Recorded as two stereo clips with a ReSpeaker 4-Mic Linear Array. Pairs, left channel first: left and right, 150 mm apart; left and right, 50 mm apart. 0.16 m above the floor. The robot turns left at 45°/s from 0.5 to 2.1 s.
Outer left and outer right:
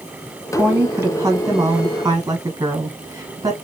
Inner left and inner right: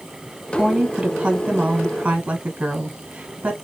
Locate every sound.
0.5 s a woman speaking: 10° right (ahead or behind), 1.0 m; by 3.5 s 25° right (ahead or behind), 1.0 m